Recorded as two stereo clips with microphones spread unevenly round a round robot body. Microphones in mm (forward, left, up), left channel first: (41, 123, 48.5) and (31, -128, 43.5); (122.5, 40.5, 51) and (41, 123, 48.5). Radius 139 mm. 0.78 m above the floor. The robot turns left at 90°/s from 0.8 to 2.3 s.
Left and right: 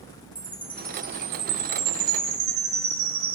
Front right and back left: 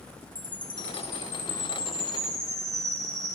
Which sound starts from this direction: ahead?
A chime, at 0.3 s.